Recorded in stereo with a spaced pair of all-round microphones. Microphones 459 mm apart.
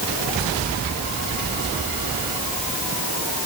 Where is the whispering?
I don't hear whispering.